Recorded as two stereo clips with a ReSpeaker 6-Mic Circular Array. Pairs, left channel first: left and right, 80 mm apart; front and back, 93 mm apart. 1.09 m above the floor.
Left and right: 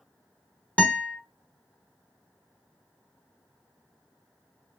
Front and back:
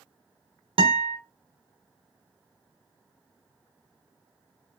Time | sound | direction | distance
0.8 | a guitar | 165° left | 1.0 m